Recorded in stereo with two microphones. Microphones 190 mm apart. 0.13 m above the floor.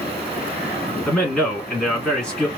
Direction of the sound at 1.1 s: 5° left (ahead or behind).